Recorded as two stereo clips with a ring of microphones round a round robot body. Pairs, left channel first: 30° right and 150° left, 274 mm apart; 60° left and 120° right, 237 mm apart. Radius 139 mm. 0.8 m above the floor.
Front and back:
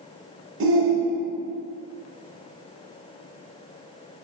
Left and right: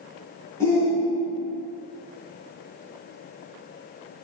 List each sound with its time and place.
0.6 s a shout: 135° left, 0.7 m